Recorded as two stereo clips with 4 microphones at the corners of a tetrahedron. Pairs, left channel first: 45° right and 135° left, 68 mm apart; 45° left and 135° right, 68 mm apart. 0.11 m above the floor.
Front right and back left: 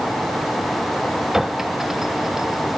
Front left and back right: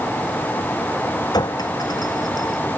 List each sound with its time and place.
1.3 s a clink: 50° left